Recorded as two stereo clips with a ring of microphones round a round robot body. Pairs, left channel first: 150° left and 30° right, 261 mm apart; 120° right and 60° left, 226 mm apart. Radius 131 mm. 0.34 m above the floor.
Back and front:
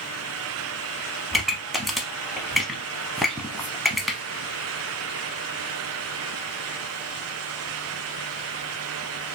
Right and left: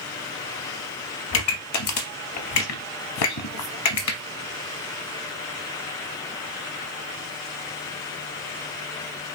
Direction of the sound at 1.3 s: 120° right.